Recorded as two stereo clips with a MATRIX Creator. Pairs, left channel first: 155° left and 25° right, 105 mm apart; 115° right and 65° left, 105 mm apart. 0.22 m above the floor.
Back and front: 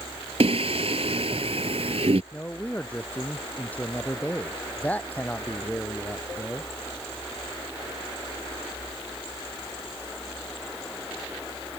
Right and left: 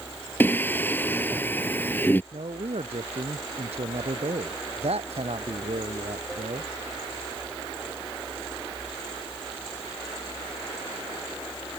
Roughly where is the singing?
Ahead right.